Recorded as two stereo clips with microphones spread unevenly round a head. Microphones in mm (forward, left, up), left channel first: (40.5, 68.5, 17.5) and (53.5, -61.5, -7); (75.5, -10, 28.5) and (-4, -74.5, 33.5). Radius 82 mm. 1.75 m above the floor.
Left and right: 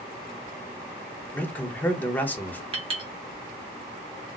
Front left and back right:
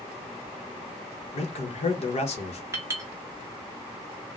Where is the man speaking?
20° left, 0.8 m.